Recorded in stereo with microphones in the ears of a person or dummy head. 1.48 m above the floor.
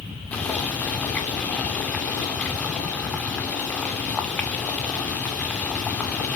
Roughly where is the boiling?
Centre.